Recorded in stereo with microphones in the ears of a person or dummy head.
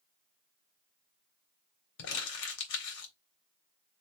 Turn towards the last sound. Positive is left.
turn(degrees=75)  # may be behind; listen again after turning